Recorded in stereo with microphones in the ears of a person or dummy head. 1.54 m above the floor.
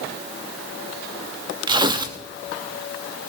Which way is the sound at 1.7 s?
25° right (ahead or behind).